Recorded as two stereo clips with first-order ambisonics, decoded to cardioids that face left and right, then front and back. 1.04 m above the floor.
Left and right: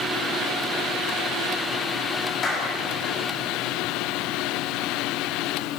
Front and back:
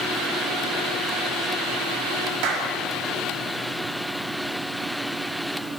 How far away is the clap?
About 5.5 m.